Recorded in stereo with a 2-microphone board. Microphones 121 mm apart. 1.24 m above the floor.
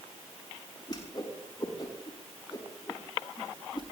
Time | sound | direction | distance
0.9 | a whoosh | 35° left (ahead or behind) | 6 m